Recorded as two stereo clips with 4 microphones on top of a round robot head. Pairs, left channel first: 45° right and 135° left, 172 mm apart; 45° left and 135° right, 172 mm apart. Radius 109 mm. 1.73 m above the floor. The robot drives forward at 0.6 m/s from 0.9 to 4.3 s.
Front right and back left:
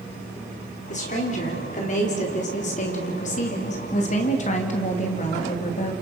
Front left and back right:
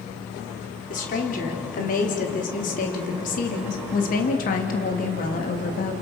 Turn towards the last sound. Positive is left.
turn(degrees=5)